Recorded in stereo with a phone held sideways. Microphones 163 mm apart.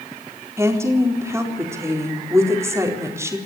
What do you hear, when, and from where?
0.6 s a woman speaking: 15° right (ahead or behind), 4 m